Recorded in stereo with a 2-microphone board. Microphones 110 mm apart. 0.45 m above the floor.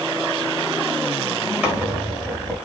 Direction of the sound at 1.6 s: 10° right (ahead or behind).